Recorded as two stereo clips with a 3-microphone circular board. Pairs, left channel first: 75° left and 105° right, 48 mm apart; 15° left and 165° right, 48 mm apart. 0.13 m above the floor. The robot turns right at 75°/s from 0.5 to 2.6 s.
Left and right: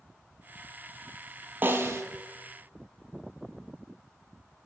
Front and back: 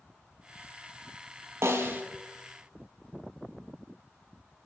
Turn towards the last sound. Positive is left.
turn(degrees=-75)